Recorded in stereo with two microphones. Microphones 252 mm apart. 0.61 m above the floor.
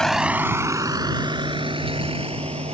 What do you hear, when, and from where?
0.0 s a vehicle: centre (ahead or behind); by 2.8 s 25° right (ahead or behind)